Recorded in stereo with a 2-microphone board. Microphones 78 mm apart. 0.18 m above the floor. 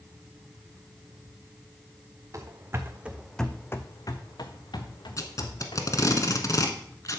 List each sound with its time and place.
2.3 s running footsteps: 45° right (ahead or behind), 1.3 m; by 6.2 s 85° left, 3 m
5.2 s tape being pulled: 45° left (ahead or behind), 1.1 m